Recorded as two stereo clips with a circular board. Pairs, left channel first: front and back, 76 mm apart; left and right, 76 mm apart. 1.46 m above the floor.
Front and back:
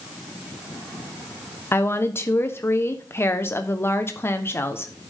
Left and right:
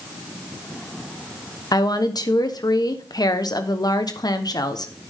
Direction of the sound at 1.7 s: 60° left.